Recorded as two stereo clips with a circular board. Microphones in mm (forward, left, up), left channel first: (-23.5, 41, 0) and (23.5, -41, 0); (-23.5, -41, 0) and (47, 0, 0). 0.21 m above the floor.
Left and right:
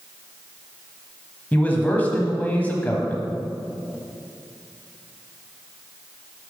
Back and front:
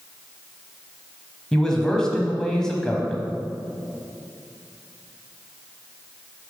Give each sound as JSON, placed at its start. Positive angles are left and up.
{"t": 1.5, "sound": "a man speaking", "azimuth_deg": 145, "distance_m": 1.1}